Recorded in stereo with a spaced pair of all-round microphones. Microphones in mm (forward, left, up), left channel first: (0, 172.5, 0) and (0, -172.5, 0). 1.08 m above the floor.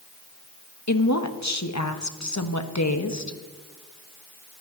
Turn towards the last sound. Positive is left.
turn(degrees=50)  # may be behind; listen again after turning